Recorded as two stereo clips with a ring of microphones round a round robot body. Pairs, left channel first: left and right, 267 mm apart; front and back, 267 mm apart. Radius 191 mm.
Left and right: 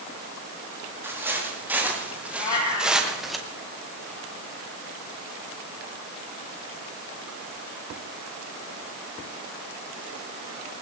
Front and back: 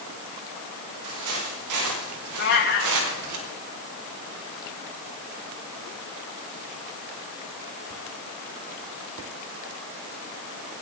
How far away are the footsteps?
About 8.5 m.